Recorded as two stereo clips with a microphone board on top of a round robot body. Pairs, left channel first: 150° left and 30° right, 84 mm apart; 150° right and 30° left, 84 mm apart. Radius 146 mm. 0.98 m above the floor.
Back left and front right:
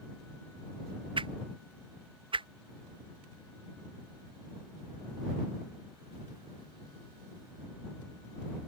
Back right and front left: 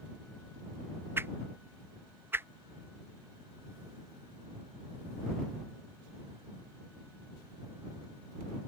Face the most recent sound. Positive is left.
turn(degrees=-35)